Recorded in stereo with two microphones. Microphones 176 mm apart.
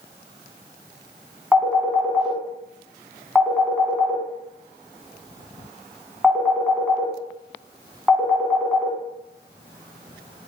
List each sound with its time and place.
1.5 s a phone ringing: 5° right (ahead or behind), 1.1 m